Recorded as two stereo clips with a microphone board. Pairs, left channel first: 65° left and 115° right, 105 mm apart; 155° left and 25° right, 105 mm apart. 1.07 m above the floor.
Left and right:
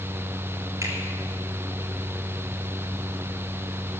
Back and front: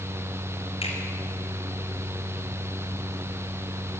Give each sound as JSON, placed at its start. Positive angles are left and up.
{"t": 0.8, "sound": "a finger snap", "azimuth_deg": -175, "distance_m": 3.5}